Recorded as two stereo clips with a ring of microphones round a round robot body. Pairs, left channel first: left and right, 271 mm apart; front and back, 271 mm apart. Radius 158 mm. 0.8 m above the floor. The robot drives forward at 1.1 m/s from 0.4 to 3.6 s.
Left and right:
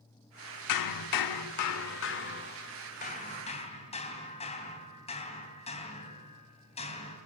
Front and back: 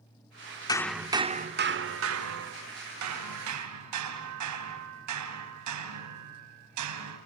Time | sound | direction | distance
0.7 | hammering | 75° left | 1.0 m